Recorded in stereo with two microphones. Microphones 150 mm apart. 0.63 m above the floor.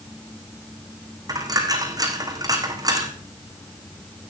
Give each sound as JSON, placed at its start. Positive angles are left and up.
{"t": 1.3, "sound": "a dropped coin", "side_deg": -25, "distance_m": 3.0}